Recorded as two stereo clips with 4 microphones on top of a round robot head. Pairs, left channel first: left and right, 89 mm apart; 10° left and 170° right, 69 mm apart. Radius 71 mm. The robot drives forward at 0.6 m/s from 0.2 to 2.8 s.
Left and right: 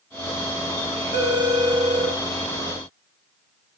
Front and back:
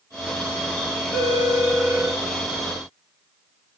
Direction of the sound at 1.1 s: 65° right.